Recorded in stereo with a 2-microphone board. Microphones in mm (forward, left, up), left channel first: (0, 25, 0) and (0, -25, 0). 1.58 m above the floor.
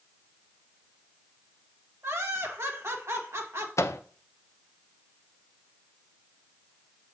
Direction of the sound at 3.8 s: 75° left (ahead or behind).